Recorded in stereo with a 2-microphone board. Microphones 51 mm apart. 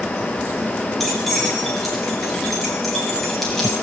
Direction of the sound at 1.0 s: Centre (ahead or behind).